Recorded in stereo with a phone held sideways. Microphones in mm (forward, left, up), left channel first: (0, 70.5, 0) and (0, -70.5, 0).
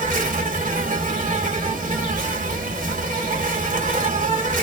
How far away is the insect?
About 1.2 m.